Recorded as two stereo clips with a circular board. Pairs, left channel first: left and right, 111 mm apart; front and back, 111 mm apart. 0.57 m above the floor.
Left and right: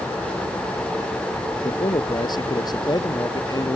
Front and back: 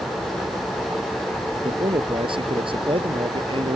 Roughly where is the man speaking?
Behind left.